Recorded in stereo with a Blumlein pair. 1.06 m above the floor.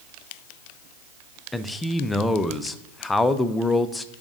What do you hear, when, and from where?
1.5 s a man speaking: 10° left, 0.5 m